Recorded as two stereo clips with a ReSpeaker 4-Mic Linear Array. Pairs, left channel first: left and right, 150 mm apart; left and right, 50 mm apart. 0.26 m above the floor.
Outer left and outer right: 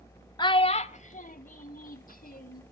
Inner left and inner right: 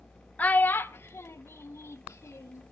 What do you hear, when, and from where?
0.4 s a child speaking: 25° left (ahead or behind), 0.6 m; by 2.6 s 70° left (ahead or behind), 1.6 m